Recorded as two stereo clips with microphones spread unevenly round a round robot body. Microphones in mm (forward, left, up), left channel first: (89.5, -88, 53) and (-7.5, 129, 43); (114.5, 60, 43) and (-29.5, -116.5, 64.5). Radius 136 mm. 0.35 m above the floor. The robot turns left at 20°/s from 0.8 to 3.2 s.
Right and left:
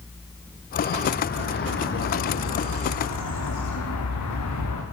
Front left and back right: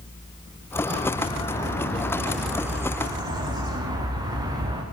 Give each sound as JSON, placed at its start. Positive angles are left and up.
{"t": 0.9, "sound": "a bird", "azimuth_deg": -10, "distance_m": 8.5}